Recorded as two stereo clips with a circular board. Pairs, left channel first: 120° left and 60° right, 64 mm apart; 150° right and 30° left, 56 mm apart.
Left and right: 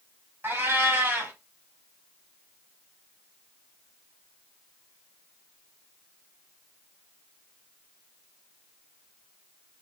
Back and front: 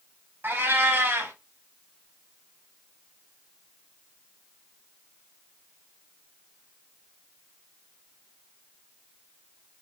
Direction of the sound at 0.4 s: 10° right.